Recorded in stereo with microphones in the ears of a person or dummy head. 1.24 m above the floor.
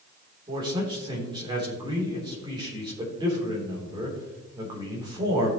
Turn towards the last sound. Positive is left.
turn(degrees=-20)  # may be behind; listen again after turning